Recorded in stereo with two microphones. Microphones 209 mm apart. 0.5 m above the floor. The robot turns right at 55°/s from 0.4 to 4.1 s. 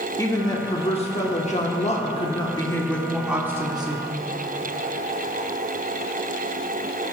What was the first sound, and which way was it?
A woman speaking, 30° left.